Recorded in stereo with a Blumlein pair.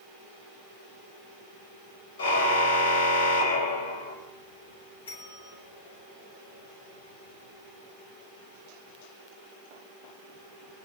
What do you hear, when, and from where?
2.2 s a car horn: 65° left, 5 m
5.1 s a bell: 65° left, 4.5 m